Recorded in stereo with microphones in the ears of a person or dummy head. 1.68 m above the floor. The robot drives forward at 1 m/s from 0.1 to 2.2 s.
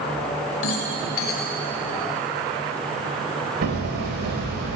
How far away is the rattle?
About 4 m.